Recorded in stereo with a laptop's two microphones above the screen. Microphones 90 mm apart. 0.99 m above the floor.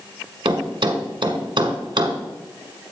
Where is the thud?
65° right (ahead or behind), 1.4 m.